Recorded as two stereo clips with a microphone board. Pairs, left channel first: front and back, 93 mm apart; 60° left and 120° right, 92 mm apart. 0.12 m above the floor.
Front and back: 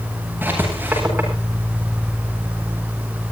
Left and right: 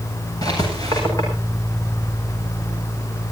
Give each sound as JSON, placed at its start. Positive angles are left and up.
{"t": 0.4, "sound": "writing", "azimuth_deg": 110, "distance_m": 9.5}